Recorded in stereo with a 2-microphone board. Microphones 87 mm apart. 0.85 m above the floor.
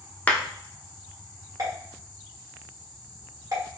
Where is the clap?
20° left (ahead or behind), 0.6 m.